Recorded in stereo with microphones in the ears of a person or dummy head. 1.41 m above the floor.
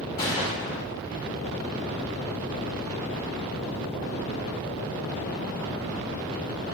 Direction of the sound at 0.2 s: 20° left (ahead or behind).